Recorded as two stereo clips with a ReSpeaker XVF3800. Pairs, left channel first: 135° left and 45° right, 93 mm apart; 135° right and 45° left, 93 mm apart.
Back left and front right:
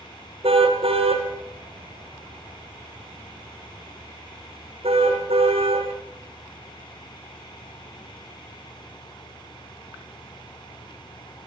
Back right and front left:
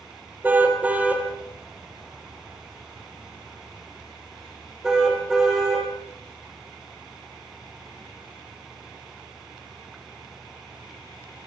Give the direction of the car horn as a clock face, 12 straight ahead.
1 o'clock.